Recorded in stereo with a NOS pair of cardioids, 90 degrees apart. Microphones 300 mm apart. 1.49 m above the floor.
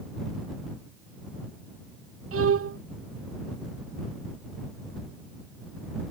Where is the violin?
50° right.